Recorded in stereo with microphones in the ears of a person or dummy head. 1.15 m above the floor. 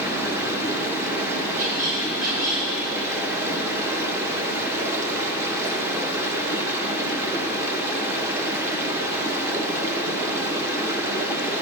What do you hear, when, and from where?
0.0 s running water: 15° right (ahead or behind), 1.0 m
1.6 s a squeak: 50° right (ahead or behind), 3.5 m